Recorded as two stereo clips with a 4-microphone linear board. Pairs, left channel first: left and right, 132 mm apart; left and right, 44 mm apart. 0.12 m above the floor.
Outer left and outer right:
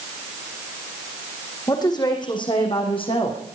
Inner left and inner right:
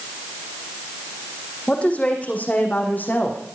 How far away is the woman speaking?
About 6 m.